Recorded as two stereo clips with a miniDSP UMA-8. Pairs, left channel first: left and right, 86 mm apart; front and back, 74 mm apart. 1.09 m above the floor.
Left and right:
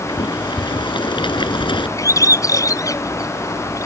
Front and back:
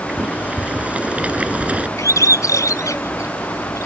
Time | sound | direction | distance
0.1 | boiling | 110° left | ?
2.0 | a bird | 40° left | ?